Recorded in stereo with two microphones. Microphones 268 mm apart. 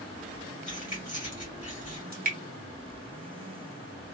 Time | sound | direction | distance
0.7 | keys jangling | 30° left (ahead or behind) | 1.6 m
2.1 | dripping | 35° right (ahead or behind) | 0.8 m